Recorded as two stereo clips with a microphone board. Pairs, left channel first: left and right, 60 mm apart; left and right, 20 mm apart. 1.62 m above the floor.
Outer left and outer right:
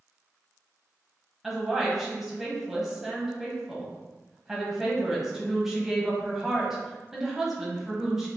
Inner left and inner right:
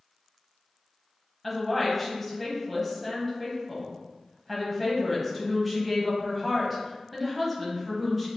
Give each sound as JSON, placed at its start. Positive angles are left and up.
{"t": 1.4, "sound": "a woman speaking", "side_deg": -5, "distance_m": 1.1}